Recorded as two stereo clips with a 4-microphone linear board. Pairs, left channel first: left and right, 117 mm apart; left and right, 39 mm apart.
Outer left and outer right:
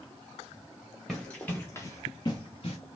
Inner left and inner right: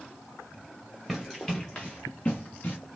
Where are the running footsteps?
Centre (ahead or behind), 1.4 m; by 2.8 s 55° left (ahead or behind), 1.5 m.